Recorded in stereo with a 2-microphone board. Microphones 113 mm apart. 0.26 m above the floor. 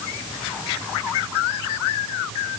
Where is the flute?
No flute in this recording.